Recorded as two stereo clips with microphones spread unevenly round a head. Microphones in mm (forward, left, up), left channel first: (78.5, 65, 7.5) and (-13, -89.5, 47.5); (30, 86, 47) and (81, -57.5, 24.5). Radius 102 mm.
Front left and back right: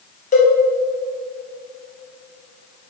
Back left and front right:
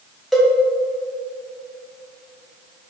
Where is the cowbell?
20° left, 1.9 m.